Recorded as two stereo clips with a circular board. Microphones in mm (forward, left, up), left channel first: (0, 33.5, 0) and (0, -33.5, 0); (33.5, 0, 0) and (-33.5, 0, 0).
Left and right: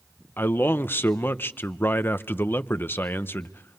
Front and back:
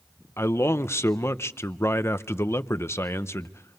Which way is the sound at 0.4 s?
40° left.